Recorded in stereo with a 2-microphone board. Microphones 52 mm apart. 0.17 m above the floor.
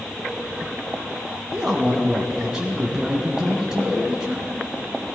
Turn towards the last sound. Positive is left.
turn(degrees=-15)  # may be behind; listen again after turning